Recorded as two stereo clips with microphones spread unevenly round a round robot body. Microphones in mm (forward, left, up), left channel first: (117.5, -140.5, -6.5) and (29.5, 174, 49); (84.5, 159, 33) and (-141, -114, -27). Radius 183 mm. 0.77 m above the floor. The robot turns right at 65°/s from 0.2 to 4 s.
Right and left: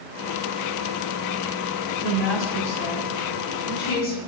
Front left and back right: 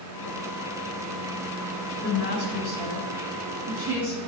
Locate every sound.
2.0 s a woman speaking: 170° left, 4.5 m; by 4.2 s 60° right, 4.5 m